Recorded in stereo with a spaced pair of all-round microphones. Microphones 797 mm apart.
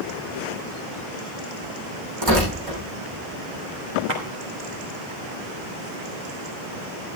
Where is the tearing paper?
30° right (ahead or behind), 10 m.